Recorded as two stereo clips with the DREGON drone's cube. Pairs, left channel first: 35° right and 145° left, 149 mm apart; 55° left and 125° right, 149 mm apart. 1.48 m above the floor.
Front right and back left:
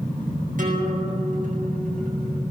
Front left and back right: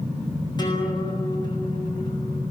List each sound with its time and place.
0.6 s a guitar: 115° left, 9 m